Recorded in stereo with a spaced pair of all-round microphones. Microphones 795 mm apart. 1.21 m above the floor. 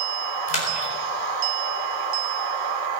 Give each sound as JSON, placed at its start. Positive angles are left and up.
{"t": 0.5, "sound": "a splash", "side_deg": 75, "distance_m": 5.0}